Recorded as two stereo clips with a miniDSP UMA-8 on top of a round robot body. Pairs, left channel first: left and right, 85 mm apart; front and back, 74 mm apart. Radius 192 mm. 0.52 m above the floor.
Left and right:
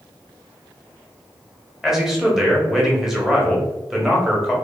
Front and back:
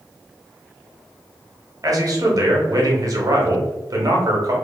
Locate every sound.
1.8 s a man speaking: 175° right, 1.1 m